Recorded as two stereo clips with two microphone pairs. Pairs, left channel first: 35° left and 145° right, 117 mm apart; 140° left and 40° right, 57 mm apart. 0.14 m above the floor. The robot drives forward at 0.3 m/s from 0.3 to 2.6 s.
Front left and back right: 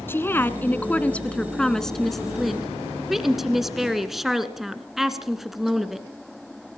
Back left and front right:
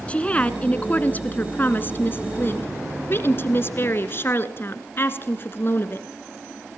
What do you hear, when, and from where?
0.1 s a woman speaking: 95° left, 1.5 m; by 6.1 s 125° left, 1.7 m